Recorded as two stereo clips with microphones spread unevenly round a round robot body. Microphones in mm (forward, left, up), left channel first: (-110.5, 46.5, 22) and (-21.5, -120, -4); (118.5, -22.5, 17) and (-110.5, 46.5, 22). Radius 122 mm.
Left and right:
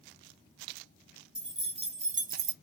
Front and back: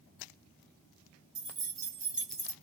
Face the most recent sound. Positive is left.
turn(degrees=-95)